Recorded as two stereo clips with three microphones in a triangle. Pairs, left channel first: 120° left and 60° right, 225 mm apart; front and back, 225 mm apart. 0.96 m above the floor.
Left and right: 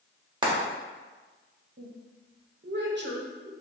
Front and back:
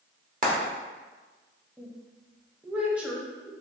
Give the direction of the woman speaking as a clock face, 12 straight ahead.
3 o'clock.